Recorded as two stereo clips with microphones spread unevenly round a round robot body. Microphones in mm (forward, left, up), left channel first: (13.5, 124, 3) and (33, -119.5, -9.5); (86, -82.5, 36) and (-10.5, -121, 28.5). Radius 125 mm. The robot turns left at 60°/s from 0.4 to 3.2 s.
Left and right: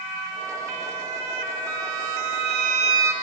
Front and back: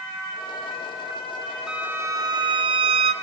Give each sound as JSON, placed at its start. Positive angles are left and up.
{"t": 1.7, "sound": "a violin", "azimuth_deg": -80, "distance_m": 0.7}